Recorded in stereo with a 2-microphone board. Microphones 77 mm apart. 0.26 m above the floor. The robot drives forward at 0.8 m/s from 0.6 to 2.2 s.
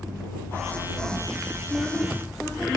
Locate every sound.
1.7 s a woman speaking: 5° right (ahead or behind), 7.5 m